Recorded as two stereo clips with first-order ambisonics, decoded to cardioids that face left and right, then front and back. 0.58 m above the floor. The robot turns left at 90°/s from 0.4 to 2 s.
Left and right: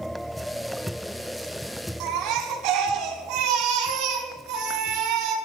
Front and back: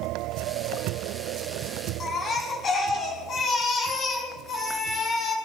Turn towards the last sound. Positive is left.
turn(degrees=-65)